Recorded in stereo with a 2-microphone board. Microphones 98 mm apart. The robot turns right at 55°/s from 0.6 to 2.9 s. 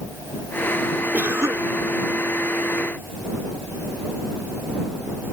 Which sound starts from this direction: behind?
A cough, at 1.1 s.